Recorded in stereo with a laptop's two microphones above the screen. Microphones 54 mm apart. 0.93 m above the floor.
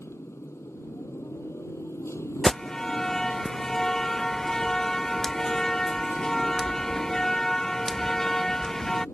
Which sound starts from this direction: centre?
An alarm, at 2.4 s.